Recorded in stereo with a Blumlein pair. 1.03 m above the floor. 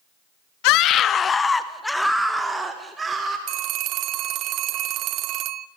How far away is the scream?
About 1.1 m.